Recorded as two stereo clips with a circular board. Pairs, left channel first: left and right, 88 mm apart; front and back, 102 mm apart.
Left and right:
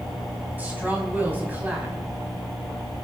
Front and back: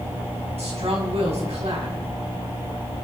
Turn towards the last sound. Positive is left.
turn(degrees=-160)